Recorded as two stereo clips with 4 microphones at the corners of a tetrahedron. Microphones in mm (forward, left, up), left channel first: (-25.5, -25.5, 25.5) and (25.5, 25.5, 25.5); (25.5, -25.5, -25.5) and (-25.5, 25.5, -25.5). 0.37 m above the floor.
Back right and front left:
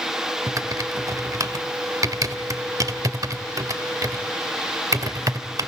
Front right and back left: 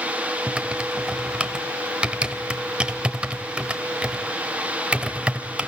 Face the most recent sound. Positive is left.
turn(degrees=65)